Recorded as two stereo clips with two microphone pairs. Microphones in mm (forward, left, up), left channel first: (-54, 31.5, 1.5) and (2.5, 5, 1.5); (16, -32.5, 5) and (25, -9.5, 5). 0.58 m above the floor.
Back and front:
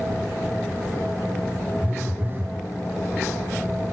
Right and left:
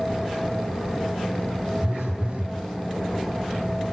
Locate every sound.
1.8 s a phone buzzing: 30° left, 1.7 m